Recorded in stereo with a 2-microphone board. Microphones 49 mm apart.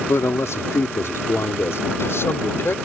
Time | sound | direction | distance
0.1 | a man speaking | 70° left (ahead or behind) | ?